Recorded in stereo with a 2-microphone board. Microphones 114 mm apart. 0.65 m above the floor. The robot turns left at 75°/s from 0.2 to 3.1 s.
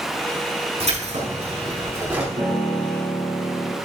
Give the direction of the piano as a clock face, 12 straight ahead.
4 o'clock.